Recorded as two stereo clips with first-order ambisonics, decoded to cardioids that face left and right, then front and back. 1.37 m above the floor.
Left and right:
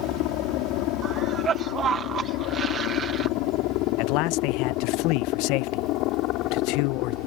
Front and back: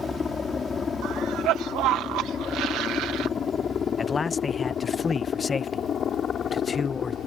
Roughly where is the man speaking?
Left.